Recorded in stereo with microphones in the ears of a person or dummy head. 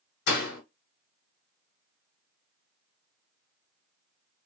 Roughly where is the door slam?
Left.